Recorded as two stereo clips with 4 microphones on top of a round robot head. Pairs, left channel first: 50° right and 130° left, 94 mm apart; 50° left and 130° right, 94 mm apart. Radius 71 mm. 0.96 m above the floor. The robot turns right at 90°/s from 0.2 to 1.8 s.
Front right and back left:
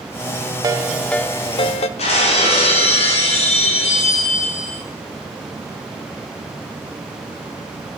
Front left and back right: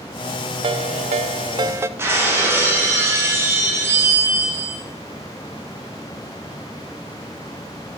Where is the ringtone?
170° right, 0.9 m; by 1.9 s 65° right, 0.9 m.